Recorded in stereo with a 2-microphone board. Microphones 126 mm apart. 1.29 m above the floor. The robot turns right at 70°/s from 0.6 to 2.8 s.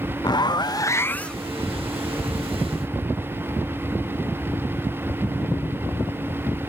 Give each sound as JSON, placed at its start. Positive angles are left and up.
{"t": 0.2, "sound": "a zipper", "azimuth_deg": 120, "distance_m": 0.5}